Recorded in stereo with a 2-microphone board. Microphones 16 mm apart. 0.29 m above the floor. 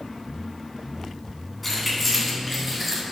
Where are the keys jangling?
5° left (ahead or behind), 2 m; by 3.0 s 10° right (ahead or behind), 1.6 m.